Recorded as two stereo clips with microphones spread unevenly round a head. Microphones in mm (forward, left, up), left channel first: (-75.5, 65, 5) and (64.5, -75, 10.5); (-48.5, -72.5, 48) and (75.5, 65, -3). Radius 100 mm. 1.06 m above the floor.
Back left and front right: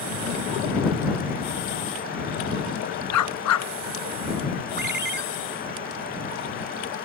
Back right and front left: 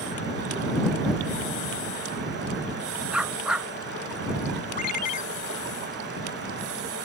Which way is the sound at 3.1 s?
140° left.